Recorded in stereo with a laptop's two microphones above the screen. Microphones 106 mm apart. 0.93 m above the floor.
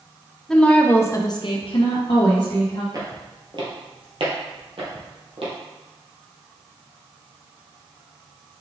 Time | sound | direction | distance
0.5 | a woman speaking | 5° left (ahead or behind) | 0.9 m
2.9 | footsteps | 40° right (ahead or behind) | 1.3 m